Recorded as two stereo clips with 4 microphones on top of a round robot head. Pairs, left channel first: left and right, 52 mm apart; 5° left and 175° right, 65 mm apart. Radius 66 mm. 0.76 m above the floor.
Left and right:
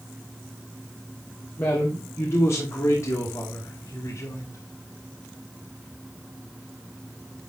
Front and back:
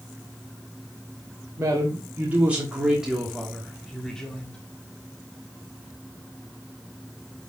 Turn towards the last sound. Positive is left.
turn(degrees=75)